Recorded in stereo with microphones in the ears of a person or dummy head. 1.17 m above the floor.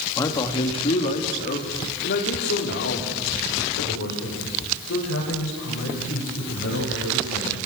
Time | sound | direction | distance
0.2 | a man speaking | 20° left (ahead or behind) | 2.5 m